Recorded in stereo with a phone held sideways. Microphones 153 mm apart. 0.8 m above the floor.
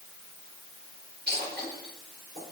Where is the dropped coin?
80° right, 4.5 m.